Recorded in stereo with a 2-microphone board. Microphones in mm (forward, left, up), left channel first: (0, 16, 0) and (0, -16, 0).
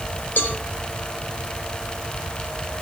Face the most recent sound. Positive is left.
turn(degrees=70)  # may be behind; listen again after turning